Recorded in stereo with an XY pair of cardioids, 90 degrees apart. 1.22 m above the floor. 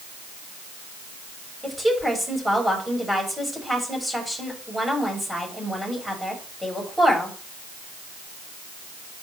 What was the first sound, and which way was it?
A woman speaking, 5° right.